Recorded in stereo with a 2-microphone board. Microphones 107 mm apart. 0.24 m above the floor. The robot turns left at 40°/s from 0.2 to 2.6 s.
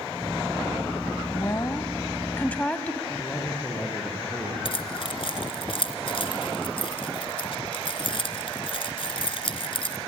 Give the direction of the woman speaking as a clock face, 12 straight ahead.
9 o'clock.